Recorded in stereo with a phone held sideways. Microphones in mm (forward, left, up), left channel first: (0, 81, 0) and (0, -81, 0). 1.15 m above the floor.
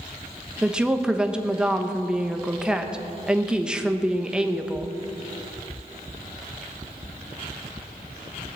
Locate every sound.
0.6 s a woman speaking: 5° right (ahead or behind), 1.1 m